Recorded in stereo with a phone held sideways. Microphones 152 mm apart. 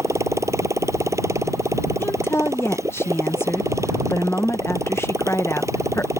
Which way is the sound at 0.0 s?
20° right (ahead or behind).